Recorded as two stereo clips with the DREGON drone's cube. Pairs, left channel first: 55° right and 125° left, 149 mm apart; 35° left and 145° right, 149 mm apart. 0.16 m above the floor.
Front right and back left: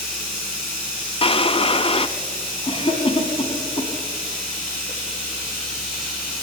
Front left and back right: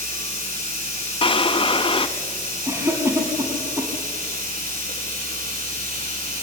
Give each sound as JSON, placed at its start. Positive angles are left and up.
{"t": 0.0, "sound": "running water", "azimuth_deg": -150, "distance_m": 8.0}
{"t": 1.2, "sound": "a drawer", "azimuth_deg": -10, "distance_m": 0.9}
{"t": 2.7, "sound": "a cough", "azimuth_deg": -85, "distance_m": 2.0}